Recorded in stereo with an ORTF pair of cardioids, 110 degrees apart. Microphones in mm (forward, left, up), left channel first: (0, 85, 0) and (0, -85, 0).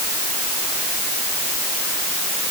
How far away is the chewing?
No chewing in this recording.